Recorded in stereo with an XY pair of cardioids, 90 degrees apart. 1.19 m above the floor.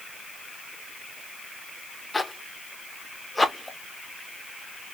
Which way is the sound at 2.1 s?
15° left.